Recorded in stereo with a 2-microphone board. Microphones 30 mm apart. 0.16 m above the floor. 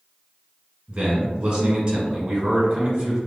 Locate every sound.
0.9 s a man speaking: 30° right (ahead or behind), 1.5 m